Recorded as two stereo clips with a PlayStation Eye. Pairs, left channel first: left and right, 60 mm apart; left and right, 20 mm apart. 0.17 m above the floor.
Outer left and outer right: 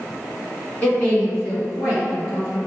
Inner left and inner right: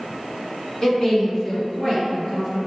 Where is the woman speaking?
20° left (ahead or behind), 1.8 m; by 2.6 s 30° left (ahead or behind), 3 m.